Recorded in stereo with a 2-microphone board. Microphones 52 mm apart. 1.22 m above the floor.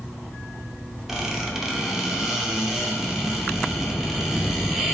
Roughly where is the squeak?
Centre.